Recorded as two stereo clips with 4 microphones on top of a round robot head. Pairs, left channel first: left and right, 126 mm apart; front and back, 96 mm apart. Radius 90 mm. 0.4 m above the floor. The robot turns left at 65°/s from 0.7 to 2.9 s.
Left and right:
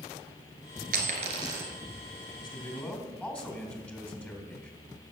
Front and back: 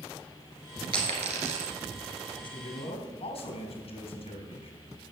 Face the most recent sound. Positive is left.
turn(degrees=10)